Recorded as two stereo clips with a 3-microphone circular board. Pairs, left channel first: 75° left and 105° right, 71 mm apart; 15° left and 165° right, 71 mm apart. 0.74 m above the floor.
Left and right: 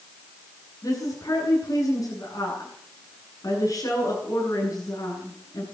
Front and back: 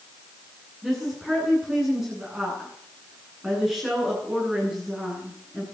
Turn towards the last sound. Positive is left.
turn(degrees=110)